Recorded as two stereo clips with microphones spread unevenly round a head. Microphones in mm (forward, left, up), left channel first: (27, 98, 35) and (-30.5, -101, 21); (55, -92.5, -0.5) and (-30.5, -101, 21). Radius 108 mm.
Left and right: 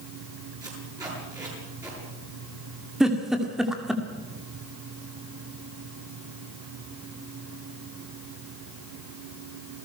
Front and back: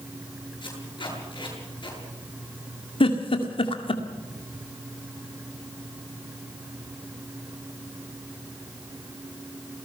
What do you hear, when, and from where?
0.6 s tape being pulled: 30° right, 8 m
3.0 s a giggle: 15° right, 2.0 m